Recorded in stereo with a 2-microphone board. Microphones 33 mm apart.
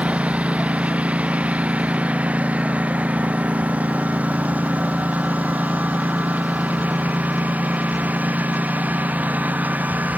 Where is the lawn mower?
40° right (ahead or behind); by 10.2 s 55° right (ahead or behind).